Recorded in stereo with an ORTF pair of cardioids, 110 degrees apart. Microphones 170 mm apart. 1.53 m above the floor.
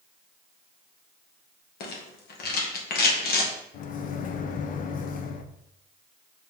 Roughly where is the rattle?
Ahead left.